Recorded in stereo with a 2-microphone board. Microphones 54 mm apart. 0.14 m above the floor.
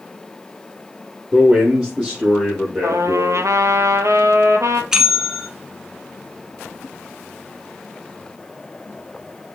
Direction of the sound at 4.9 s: 10° right (ahead or behind).